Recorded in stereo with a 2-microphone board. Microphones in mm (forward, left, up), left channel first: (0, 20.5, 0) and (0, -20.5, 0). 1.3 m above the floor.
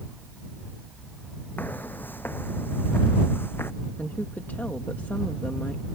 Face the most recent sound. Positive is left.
turn(degrees=50)  # may be behind; listen again after turning